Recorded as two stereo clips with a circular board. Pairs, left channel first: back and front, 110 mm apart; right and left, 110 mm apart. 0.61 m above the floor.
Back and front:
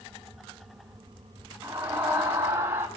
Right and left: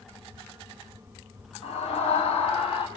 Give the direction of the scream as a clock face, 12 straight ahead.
2 o'clock.